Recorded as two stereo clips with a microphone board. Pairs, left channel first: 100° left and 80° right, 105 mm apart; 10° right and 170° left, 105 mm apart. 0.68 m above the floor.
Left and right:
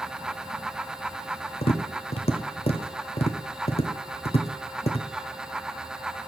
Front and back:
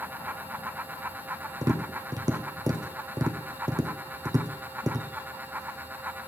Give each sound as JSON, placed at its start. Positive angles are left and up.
{"t": 1.6, "sound": "tapping", "azimuth_deg": 120, "distance_m": 0.9}